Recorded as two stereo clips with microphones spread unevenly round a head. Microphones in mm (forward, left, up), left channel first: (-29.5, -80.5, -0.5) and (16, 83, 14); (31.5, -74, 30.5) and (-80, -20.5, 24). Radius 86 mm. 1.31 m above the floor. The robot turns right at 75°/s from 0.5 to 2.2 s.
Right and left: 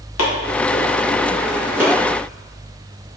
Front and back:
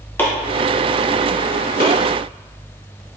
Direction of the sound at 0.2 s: 100° right.